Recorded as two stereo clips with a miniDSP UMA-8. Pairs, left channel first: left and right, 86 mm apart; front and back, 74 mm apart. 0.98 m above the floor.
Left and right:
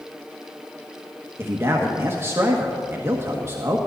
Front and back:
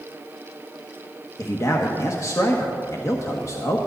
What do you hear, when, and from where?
1.4 s a man speaking: 35° right, 1.3 m